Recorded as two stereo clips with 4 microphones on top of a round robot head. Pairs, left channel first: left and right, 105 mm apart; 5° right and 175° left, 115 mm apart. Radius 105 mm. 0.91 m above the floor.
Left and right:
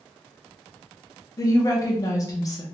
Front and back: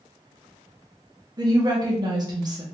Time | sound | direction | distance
1.4 | a woman speaking | 135° left | 0.9 m